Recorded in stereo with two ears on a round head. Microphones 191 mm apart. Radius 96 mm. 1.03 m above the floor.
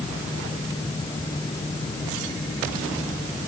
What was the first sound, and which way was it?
Only background noise.